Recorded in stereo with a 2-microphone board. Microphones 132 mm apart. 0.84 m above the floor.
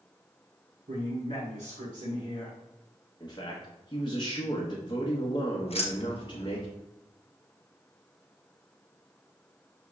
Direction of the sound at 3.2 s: 35° left (ahead or behind).